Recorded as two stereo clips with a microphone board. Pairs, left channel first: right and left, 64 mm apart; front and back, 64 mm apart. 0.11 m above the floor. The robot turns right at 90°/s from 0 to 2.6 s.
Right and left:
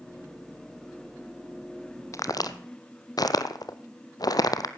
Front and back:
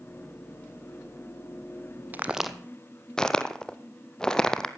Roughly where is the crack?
Behind right.